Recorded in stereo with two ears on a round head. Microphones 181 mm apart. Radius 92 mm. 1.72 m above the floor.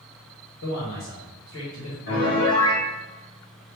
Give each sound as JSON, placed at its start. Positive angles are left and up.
{"t": 0.6, "sound": "a man speaking", "side_deg": 70, "distance_m": 1.4}
{"t": 2.1, "sound": "a piano", "side_deg": 65, "distance_m": 1.2}